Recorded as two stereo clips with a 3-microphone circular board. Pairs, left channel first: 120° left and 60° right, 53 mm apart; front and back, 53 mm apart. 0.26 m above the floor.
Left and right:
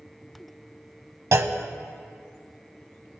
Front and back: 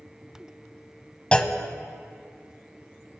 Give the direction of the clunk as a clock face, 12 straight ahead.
2 o'clock.